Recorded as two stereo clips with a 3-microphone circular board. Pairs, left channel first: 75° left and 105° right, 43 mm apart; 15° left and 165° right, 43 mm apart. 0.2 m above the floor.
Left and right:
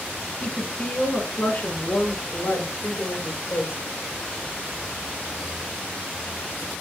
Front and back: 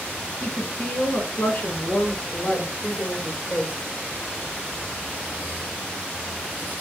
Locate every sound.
0.4 s a woman speaking: 30° left, 2.5 m; by 3.7 s 55° left, 3.5 m